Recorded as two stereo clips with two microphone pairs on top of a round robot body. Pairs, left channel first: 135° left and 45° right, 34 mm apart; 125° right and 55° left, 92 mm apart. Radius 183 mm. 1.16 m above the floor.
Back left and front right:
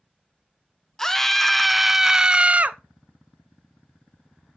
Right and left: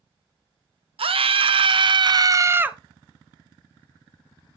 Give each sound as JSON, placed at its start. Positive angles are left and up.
{"t": 1.0, "sound": "a scream", "azimuth_deg": 55, "distance_m": 1.1}